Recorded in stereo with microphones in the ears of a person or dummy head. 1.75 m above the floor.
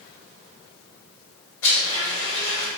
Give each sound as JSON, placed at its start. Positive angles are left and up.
{"t": 1.6, "sound": "a blender", "side_deg": 80, "distance_m": 1.8}